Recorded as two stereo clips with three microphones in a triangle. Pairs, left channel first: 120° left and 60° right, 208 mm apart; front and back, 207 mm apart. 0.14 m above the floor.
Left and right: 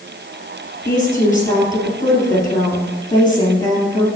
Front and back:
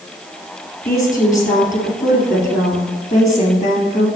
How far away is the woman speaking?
About 2.5 m.